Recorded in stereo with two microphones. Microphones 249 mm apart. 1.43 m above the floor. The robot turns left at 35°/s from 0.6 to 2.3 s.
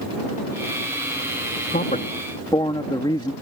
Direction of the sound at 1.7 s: 40° left (ahead or behind).